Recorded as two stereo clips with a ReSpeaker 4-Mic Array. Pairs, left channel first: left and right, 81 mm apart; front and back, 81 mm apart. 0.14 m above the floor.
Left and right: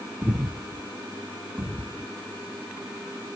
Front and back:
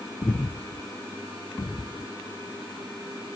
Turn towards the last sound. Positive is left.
turn(degrees=-25)